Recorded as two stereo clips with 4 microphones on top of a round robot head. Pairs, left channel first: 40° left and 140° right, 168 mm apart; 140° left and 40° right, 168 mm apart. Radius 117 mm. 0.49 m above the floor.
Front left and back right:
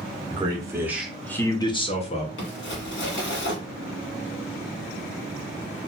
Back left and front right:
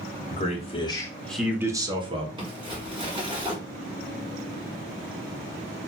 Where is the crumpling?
25° left, 1.4 m.